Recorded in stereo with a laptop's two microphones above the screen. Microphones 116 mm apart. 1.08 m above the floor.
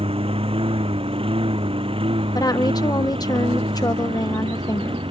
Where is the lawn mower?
55° right (ahead or behind); by 5.1 s 50° right (ahead or behind).